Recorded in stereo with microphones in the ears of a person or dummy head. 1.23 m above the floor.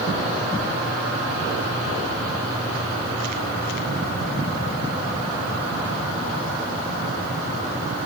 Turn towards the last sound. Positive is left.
No sound to turn to.